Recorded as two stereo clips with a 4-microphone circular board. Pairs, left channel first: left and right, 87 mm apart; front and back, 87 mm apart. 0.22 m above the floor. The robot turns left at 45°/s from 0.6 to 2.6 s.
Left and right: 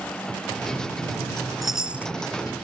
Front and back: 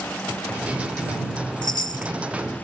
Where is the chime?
Straight ahead; by 2.1 s 25° right.